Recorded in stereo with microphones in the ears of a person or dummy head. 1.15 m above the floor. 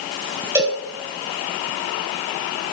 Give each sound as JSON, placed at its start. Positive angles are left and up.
{"t": 0.6, "sound": "a cowbell", "side_deg": -15, "distance_m": 3.0}